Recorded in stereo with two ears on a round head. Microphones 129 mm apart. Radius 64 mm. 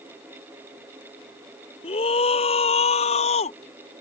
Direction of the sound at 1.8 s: 40° left (ahead or behind).